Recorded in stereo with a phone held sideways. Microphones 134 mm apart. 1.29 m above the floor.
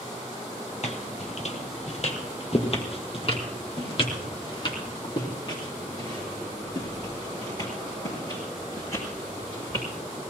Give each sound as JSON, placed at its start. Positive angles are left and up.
{"t": 0.8, "sound": "footsteps", "side_deg": 50, "distance_m": 2.0}